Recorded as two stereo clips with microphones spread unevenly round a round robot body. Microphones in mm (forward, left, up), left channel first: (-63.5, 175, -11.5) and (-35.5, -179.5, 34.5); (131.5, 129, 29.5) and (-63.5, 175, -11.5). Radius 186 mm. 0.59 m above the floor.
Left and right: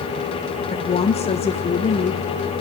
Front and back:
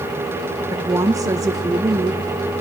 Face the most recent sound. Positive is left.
turn(degrees=135)